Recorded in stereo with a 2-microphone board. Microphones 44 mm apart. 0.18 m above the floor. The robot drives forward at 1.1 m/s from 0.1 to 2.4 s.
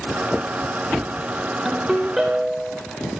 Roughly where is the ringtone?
Centre.